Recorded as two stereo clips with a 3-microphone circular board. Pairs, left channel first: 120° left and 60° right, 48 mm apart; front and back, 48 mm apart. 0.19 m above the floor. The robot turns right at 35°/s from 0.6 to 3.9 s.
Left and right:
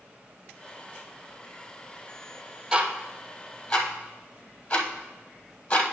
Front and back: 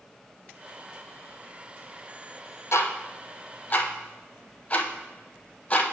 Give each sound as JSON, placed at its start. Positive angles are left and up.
{"t": 2.7, "sound": "ticking", "azimuth_deg": 20, "distance_m": 0.9}